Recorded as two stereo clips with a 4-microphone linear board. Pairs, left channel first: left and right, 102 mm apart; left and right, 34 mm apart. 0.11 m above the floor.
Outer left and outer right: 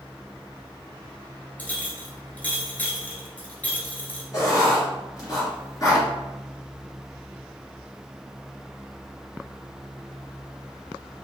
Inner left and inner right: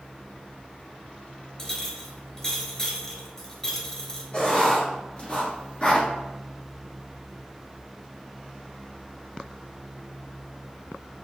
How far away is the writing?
About 1.9 m.